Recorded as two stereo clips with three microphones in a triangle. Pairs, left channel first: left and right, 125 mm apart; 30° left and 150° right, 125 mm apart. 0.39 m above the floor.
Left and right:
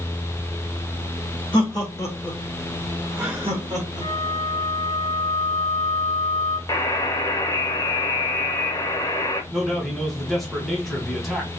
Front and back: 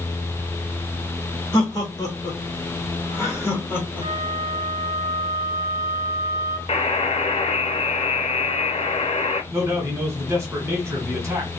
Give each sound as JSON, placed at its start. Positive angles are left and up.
{"t": 1.5, "sound": "laughter", "azimuth_deg": 65, "distance_m": 1.2}
{"t": 4.0, "sound": "a flute", "azimuth_deg": 30, "distance_m": 1.9}
{"t": 6.7, "sound": "a buzzer", "azimuth_deg": 40, "distance_m": 0.6}
{"t": 9.5, "sound": "a man speaking", "azimuth_deg": 175, "distance_m": 1.3}